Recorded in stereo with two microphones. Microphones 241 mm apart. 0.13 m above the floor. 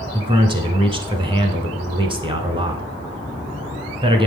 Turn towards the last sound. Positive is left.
turn(degrees=-20)  # may be behind; listen again after turning